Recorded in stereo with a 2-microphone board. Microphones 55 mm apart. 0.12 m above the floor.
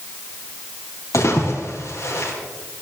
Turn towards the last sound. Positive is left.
turn(degrees=60)  # may be behind; listen again after turning